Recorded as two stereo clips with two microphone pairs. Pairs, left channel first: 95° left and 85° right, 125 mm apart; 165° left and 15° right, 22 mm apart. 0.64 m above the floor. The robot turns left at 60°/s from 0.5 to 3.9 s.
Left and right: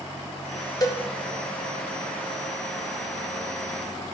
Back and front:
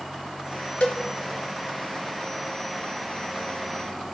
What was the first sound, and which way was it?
A cowbell, 155° left.